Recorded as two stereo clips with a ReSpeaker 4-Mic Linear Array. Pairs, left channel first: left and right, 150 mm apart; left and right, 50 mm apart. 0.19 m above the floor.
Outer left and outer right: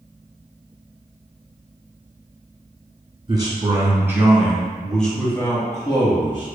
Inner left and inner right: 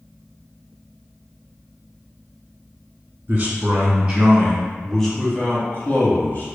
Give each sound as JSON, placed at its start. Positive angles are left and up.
{"t": 3.3, "sound": "a man speaking", "side_deg": -30, "distance_m": 1.7}